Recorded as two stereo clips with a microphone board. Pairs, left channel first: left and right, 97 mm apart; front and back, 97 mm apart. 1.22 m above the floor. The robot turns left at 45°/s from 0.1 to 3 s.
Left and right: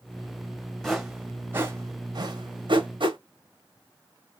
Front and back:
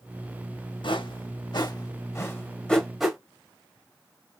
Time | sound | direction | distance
0.8 | a whoosh | 5° left | 1.1 m